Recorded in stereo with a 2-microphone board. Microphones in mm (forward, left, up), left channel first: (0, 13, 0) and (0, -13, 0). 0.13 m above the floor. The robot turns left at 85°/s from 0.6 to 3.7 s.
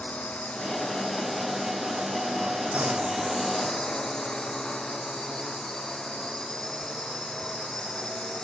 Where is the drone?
60° left; by 8.4 s 155° left.